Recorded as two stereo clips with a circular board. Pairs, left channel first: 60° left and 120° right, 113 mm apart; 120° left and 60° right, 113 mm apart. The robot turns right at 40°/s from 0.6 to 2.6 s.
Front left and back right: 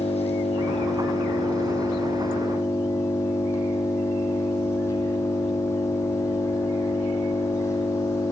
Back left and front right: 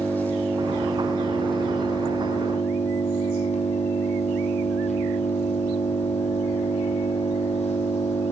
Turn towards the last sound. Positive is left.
turn(degrees=125)